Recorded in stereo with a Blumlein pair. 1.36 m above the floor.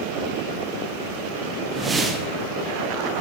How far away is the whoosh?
About 1.9 m.